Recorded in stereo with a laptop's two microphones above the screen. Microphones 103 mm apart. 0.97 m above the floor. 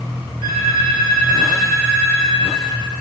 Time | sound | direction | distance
0.4 | a phone ringing | 80° right | 3.5 m